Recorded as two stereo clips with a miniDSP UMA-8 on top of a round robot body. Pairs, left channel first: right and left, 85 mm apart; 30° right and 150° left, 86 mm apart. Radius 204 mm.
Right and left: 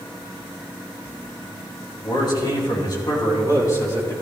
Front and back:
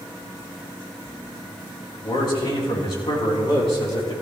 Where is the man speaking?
60° right, 3.5 m; by 4.1 s 35° right, 3.5 m.